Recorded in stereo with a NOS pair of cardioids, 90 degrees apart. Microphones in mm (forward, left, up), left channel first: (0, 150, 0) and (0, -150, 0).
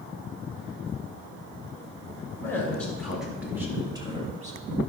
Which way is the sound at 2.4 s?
10° left.